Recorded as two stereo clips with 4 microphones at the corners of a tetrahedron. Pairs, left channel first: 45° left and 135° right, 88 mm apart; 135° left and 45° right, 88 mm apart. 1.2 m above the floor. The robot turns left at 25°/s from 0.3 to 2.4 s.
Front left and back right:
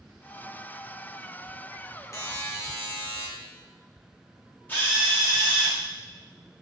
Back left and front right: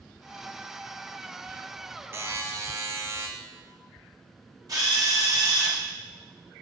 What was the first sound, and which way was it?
A buzzer, 10° left.